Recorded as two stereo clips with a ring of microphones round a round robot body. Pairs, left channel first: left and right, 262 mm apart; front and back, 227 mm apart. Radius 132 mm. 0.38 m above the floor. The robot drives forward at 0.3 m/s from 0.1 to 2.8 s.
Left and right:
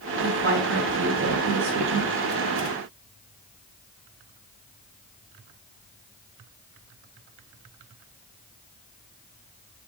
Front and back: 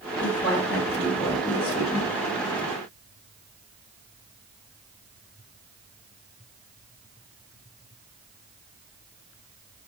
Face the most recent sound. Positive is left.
turn(degrees=-95)